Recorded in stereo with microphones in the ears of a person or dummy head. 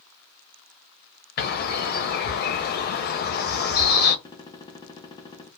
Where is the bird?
45° left (ahead or behind), 0.6 m.